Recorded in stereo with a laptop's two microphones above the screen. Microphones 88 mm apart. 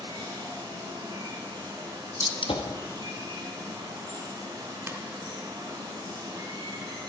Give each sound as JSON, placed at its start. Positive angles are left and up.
{"t": 0.0, "sound": "running water", "side_deg": -55, "distance_m": 3.0}
{"t": 2.2, "sound": "a gunshot", "side_deg": 80, "distance_m": 0.9}
{"t": 4.9, "sound": "a ringtone", "side_deg": -30, "distance_m": 1.0}